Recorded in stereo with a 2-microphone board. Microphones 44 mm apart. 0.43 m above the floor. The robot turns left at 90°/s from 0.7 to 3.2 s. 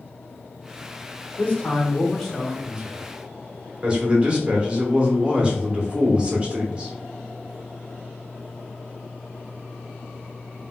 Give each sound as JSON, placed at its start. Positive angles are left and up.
{"t": 1.4, "sound": "a man speaking", "azimuth_deg": 90, "distance_m": 0.9}
{"t": 3.8, "sound": "a man speaking", "side_deg": -25, "distance_m": 0.8}